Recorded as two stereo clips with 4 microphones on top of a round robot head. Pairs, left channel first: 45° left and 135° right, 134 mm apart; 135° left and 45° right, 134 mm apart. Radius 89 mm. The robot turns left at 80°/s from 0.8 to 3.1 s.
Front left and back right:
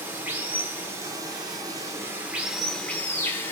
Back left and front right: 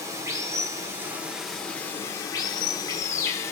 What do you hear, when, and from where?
0.0 s running water: 80° right, 0.8 m; by 3.5 s 95° left, 0.8 m